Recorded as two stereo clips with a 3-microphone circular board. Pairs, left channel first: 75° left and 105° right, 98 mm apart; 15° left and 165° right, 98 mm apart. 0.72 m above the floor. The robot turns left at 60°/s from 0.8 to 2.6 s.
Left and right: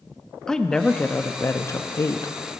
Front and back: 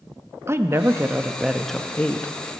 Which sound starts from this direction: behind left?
A woman speaking, at 0.5 s.